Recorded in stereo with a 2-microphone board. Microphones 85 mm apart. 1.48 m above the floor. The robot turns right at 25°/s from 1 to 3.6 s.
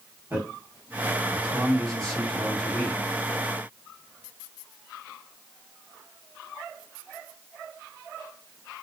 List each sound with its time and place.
0.3 s a man speaking: 20° right (ahead or behind), 1.3 m; by 3.0 s 30° left (ahead or behind), 1.3 m